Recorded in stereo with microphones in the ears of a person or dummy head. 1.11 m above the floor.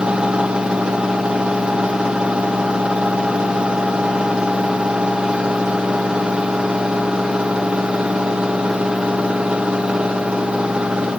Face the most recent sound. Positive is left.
turn(degrees=0)  # may be behind; listen again after turning